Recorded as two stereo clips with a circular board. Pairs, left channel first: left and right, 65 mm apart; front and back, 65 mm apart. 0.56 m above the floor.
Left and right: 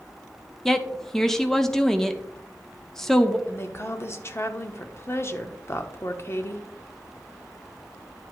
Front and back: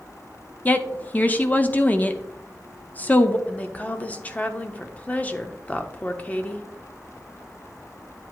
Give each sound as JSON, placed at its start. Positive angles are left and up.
{"t": 0.7, "sound": "a woman speaking", "azimuth_deg": 15, "distance_m": 0.8}
{"t": 3.5, "sound": "a woman speaking", "azimuth_deg": 60, "distance_m": 0.9}